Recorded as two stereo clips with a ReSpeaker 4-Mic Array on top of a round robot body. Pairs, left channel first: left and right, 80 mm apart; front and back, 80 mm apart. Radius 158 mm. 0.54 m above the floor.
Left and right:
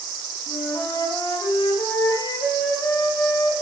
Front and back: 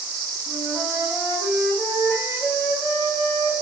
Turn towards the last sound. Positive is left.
turn(degrees=125)